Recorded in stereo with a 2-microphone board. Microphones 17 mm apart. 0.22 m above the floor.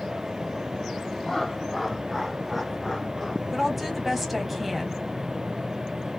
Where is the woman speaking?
10° right (ahead or behind), 1.1 m.